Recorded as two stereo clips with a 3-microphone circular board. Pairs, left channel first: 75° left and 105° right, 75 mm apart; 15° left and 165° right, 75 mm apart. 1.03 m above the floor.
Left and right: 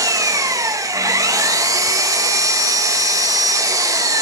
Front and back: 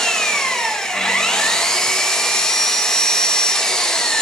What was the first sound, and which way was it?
An engine running, 65° right.